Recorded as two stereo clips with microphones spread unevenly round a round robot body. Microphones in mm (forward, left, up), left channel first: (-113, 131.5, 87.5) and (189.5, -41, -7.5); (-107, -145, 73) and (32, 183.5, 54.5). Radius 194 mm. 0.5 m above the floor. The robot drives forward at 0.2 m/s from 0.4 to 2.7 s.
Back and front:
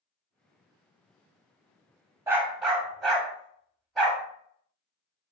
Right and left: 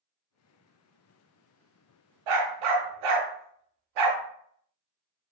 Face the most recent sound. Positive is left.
turn(degrees=65)